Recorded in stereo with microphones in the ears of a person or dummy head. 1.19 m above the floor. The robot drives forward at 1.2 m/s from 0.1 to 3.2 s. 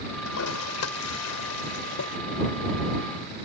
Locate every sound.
0.2 s a toilet flushing: 85° left; by 2.2 s 70° left (ahead or behind)